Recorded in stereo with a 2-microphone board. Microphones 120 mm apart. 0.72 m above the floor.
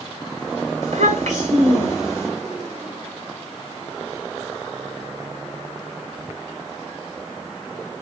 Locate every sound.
0.8 s a child speaking: 85° right, 1.5 m